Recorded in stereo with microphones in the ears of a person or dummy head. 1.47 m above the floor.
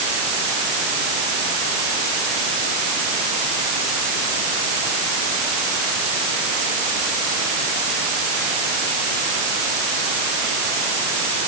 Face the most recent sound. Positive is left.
No sound to turn to.